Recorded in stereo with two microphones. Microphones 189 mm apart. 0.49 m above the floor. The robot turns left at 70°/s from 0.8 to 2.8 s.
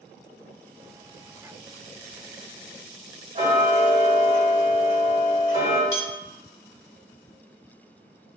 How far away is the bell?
About 1.5 m.